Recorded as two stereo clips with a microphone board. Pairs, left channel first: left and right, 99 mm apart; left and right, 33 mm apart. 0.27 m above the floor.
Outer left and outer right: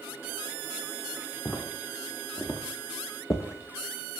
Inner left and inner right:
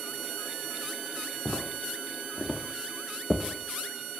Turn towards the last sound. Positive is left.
turn(degrees=50)  # may be behind; listen again after turning